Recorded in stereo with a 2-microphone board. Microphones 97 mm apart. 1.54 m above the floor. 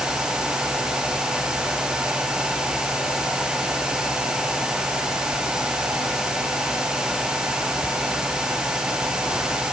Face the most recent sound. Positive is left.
No sound to turn to.